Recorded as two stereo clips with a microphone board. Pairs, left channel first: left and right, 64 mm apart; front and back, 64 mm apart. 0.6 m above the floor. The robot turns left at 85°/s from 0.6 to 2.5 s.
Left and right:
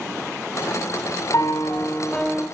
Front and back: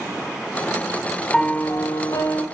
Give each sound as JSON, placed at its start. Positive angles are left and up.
{"t": 1.3, "sound": "a piano", "azimuth_deg": 80, "distance_m": 1.7}